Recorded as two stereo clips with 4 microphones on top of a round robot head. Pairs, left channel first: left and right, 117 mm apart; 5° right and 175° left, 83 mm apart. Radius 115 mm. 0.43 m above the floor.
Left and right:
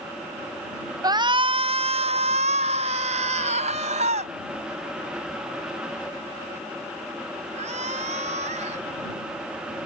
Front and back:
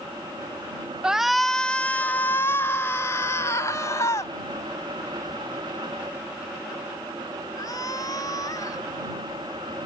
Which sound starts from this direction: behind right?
A shout, at 1.0 s.